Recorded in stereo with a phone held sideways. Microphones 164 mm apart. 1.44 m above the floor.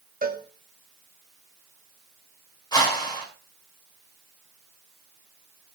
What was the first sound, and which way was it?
A cowbell, 60° right (ahead or behind).